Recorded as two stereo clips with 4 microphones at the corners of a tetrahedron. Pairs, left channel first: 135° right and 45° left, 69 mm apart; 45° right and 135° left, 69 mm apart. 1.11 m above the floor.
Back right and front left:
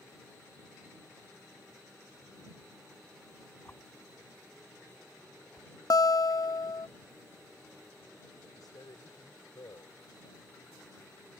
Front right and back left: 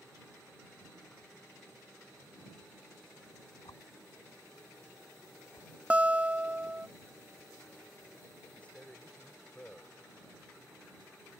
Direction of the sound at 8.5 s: 115° right.